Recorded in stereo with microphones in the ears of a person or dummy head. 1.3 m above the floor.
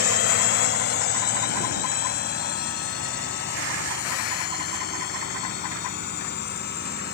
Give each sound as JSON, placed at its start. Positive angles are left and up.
{"t": 0.0, "sound": "a drone", "side_deg": 50}